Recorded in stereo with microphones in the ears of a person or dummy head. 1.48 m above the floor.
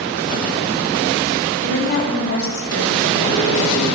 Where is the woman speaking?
60° left (ahead or behind), 3.5 m; by 3.4 s 70° left (ahead or behind), 4.5 m.